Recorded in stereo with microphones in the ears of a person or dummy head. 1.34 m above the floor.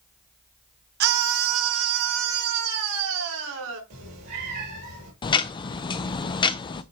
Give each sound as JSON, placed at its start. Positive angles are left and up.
{"t": 1.0, "sound": "a scream", "side_deg": -55, "distance_m": 0.8}
{"t": 3.9, "sound": "a cat meowing", "side_deg": -60, "distance_m": 4.5}
{"t": 5.2, "sound": "ticking", "side_deg": 25, "distance_m": 0.5}